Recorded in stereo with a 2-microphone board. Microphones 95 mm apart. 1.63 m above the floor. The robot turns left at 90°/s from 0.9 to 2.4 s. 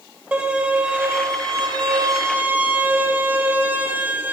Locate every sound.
0.3 s a violin: 20° right, 2 m; by 4.3 s 155° right, 2 m